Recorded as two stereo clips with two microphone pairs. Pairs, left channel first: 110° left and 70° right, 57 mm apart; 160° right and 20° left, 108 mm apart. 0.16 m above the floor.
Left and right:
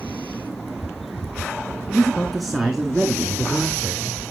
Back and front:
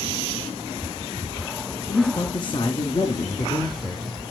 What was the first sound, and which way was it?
A man speaking, 175° right.